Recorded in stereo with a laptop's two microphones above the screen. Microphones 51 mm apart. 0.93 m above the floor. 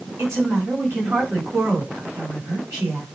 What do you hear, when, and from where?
0.2 s a woman speaking: 55° right (ahead or behind), 6 m